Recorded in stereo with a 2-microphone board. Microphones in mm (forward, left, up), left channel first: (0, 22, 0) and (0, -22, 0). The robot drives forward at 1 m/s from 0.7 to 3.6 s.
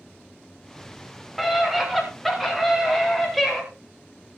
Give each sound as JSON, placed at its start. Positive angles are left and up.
{"t": 1.4, "sound": "a scream", "side_deg": 0, "distance_m": 6.0}